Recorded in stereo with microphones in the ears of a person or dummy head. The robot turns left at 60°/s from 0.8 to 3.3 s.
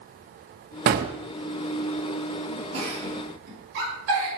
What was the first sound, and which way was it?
A gunshot, 45° right (ahead or behind).